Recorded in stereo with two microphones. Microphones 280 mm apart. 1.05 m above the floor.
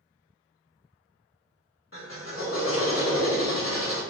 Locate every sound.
1.9 s a drill: 50° left (ahead or behind), 1.3 m